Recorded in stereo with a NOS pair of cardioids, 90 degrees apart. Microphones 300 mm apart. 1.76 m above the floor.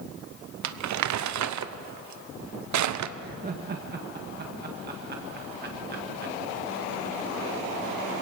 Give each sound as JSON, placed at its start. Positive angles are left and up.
{"t": 0.6, "sound": "crumpling", "azimuth_deg": -65, "distance_m": 0.9}
{"t": 3.2, "sound": "laughter", "azimuth_deg": -30, "distance_m": 1.9}